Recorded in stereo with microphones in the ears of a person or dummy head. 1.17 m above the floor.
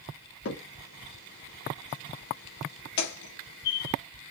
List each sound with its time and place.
0.5 s a crack: 70° left (ahead or behind), 1.1 m